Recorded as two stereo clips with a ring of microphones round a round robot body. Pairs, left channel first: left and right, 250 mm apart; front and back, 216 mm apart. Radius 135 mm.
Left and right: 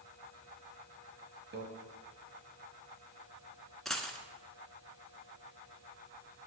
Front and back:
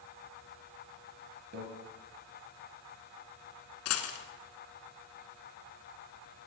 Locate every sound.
1.5 s a microwave: 135° right, 1.8 m
3.9 s a dropped coin: straight ahead, 1.4 m